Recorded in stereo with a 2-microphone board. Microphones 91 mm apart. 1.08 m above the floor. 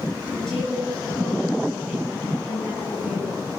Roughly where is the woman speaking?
Centre.